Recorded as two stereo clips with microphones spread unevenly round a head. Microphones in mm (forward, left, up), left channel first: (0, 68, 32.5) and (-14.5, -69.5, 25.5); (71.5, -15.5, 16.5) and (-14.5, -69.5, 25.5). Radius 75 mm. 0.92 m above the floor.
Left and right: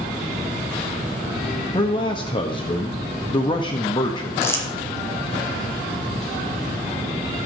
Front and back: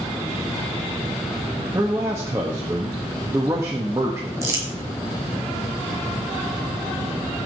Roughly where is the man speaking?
Behind left.